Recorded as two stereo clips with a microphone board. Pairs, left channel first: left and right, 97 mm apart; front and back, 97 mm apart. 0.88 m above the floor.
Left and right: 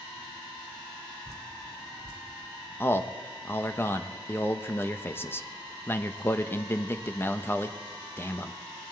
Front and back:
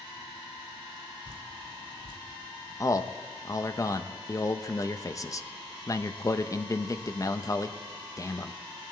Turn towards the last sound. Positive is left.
turn(degrees=35)